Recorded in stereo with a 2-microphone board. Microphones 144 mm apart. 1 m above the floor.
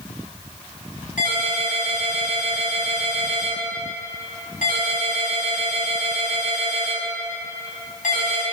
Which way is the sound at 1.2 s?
80° left.